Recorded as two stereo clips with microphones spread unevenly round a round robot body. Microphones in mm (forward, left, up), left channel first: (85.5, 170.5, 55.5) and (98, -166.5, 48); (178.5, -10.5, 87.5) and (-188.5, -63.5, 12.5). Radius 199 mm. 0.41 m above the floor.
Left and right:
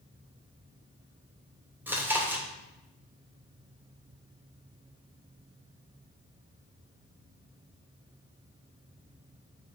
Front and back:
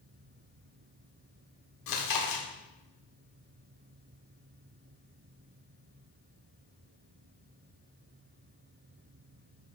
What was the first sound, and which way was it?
Chewing, 5° right.